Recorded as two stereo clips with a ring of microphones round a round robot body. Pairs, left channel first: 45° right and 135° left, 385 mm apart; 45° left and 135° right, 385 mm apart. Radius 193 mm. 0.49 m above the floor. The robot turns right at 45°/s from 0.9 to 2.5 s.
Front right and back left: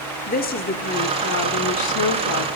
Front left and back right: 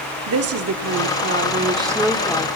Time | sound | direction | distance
0.3 | a woman speaking | 100° right | 0.9 m